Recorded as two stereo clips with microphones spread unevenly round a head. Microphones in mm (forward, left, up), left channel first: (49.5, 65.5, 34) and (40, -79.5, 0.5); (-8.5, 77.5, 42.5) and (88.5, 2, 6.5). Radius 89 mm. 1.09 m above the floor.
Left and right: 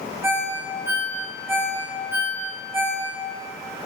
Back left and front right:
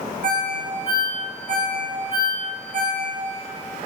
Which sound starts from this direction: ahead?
A ringtone, at 0.2 s.